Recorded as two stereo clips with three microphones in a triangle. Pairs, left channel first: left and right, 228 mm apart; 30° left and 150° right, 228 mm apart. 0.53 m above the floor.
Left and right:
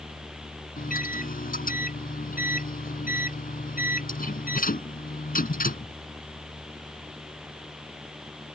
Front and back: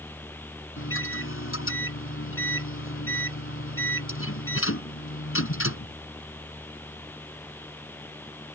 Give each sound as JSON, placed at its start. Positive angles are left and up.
{"t": 0.8, "sound": "a microwave", "azimuth_deg": 40}